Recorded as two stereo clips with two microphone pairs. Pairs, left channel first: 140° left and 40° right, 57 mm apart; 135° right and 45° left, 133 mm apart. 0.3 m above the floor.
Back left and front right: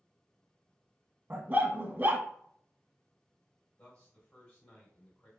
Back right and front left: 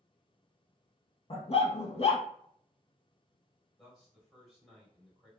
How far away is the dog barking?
About 0.6 m.